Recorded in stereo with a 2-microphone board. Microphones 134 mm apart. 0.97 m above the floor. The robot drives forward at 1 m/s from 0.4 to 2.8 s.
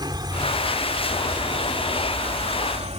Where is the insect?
35° right (ahead or behind); by 3.0 s 55° right (ahead or behind).